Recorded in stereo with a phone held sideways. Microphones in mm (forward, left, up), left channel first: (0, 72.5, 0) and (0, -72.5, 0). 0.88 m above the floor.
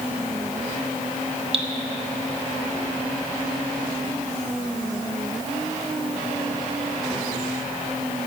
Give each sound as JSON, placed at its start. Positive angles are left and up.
{"t": 1.5, "sound": "dripping", "side_deg": -40, "distance_m": 1.3}